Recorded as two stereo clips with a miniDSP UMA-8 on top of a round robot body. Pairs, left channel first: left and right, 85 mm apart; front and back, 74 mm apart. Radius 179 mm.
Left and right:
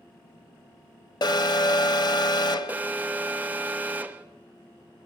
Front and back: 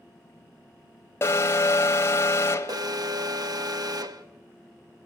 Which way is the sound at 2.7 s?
160° right.